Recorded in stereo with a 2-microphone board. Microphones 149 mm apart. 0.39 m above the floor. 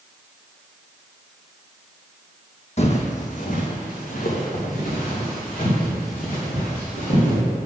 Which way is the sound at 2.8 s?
50° left (ahead or behind).